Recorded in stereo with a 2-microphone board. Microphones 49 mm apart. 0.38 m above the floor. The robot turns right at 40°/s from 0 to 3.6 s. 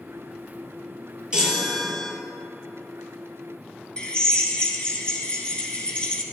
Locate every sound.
1.3 s a chime: 15° right, 4 m; by 2.1 s 15° left, 4 m
4.0 s a drill: 25° left (ahead or behind), 2 m